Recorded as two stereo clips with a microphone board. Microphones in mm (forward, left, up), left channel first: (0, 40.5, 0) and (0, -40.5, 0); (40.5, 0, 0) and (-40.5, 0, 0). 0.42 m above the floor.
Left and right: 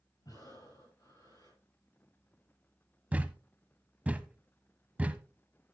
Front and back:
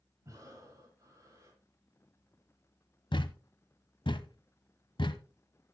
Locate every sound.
0.2 s breathing: 130° left, 9.5 m
3.1 s a thud: 20° right, 0.7 m